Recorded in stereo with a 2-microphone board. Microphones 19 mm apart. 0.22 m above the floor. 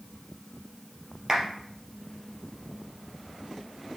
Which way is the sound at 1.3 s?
30° right (ahead or behind).